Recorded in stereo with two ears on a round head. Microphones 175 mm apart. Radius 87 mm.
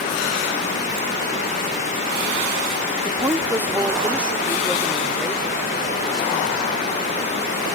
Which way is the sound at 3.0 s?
15° right (ahead or behind).